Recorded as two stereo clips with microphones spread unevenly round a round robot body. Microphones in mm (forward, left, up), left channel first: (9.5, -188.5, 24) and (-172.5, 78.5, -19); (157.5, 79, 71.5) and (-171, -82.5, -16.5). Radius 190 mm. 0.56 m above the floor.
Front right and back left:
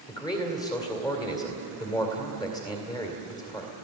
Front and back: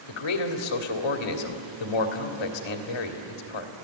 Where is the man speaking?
25° left, 2 m.